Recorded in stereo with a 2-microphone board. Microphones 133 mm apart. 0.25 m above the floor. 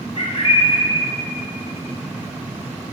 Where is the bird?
45° left (ahead or behind), 2.5 m.